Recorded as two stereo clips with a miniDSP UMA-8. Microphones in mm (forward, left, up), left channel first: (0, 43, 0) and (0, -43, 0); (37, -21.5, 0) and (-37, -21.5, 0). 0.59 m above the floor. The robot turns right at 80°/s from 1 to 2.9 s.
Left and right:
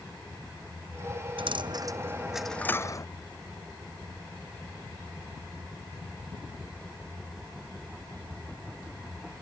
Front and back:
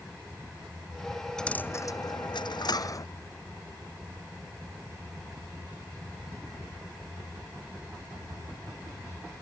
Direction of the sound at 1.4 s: 85° right.